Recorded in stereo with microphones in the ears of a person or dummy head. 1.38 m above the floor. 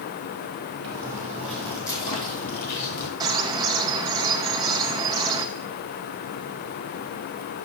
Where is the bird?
15° right (ahead or behind), 0.6 m.